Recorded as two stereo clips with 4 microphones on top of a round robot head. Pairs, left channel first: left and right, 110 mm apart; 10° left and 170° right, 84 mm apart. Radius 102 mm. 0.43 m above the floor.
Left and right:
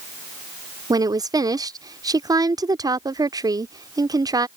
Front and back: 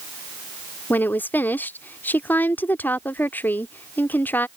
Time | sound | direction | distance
0.9 | a woman speaking | 50° right | ?